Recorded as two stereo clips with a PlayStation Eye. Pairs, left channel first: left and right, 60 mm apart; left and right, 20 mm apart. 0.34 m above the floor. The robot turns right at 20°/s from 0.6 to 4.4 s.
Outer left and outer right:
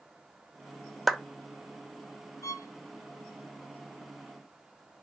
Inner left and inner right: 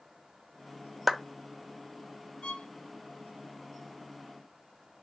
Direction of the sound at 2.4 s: 65° left (ahead or behind).